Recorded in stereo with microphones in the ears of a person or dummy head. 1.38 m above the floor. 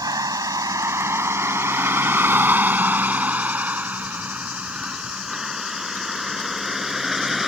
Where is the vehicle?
15° right (ahead or behind); by 7.5 s centre (ahead or behind).